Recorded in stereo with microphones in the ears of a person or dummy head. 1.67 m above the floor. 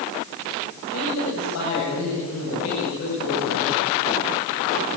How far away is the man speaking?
About 9.5 m.